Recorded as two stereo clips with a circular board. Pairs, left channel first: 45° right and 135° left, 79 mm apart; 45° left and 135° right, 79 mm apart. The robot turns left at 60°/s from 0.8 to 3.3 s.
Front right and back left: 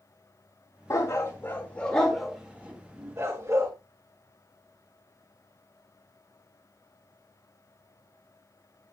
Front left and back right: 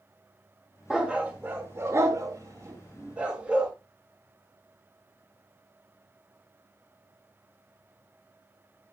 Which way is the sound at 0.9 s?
55° right.